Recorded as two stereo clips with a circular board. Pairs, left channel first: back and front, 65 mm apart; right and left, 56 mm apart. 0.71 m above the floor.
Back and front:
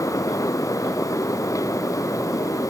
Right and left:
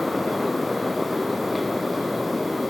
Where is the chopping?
I don't hear chopping.